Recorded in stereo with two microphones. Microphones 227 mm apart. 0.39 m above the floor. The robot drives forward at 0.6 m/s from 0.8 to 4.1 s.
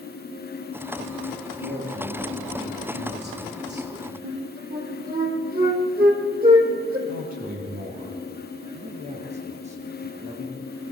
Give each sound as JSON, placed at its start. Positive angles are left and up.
{"t": 1.6, "sound": "a man speaking", "side_deg": -40, "distance_m": 7.0}
{"t": 4.2, "sound": "a flute", "side_deg": -40, "distance_m": 3.5}
{"t": 7.1, "sound": "a man speaking", "side_deg": -40, "distance_m": 8.5}
{"t": 8.7, "sound": "a man speaking", "side_deg": -30, "distance_m": 7.0}